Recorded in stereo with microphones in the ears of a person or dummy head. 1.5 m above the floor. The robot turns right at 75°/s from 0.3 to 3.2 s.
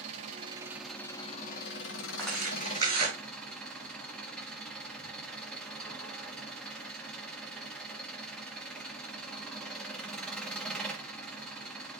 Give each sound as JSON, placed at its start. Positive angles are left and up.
{"t": 0.0, "sound": "an engine running", "azimuth_deg": -40, "distance_m": 1.7}
{"t": 2.2, "sound": "tearing paper", "side_deg": 10, "distance_m": 7.5}